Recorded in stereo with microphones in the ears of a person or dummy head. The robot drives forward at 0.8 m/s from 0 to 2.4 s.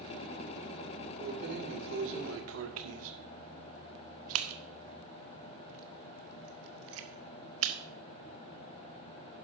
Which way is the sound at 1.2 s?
50° right (ahead or behind).